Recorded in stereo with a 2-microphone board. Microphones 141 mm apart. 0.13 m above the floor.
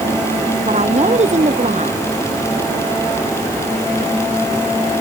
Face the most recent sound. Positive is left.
turn(degrees=-50)  # may be behind; listen again after turning